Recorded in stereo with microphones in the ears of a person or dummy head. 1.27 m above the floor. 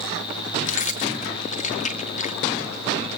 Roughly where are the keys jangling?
Left.